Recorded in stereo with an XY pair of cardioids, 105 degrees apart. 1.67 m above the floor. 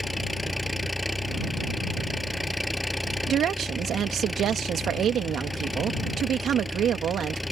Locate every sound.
0.0 s an engine running: 5° left
3.3 s a woman speaking: 65° right